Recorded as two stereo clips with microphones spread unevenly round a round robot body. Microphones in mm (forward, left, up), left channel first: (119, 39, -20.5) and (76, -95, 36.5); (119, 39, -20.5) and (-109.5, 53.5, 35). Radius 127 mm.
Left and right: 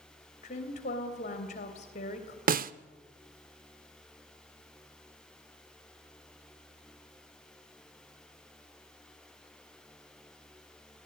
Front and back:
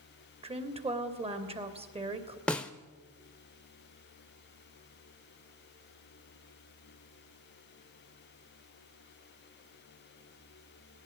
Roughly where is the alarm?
I don't hear an alarm.